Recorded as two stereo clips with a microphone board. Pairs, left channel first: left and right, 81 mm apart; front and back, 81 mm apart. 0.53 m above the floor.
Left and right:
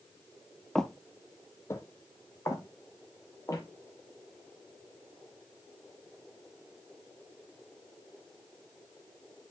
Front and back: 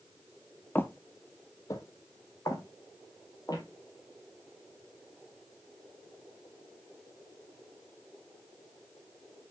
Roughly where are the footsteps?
Ahead.